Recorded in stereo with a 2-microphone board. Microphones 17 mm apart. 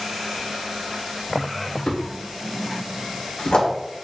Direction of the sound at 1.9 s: 70° left (ahead or behind).